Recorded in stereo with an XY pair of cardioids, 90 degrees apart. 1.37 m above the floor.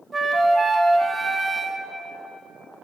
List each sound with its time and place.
0.1 s a flute: 30° right, 1.2 m